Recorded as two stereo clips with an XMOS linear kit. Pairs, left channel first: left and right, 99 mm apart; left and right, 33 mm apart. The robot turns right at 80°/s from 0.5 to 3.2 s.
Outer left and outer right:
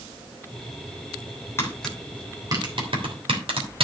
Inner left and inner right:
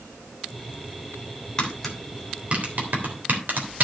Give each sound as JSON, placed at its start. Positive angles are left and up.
{"t": 1.6, "sound": "tapping", "side_deg": 25, "distance_m": 3.0}